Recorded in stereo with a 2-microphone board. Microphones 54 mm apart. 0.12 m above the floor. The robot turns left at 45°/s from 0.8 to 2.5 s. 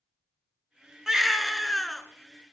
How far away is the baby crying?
About 0.5 m.